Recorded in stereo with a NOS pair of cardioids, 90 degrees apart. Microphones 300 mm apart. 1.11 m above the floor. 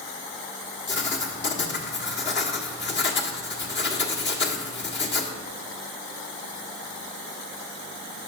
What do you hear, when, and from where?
0.9 s writing: 40° left, 1.4 m